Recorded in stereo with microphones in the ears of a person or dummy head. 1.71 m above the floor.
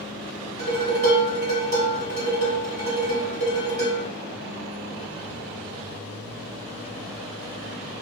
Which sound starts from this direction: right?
Dishes clattering, at 0.6 s.